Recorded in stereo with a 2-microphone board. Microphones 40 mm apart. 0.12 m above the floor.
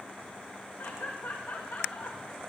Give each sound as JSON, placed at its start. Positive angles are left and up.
{"t": 0.8, "sound": "laughter", "side_deg": 85, "distance_m": 8.5}